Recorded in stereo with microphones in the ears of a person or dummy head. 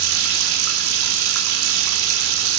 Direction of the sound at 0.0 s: 75° right (ahead or behind).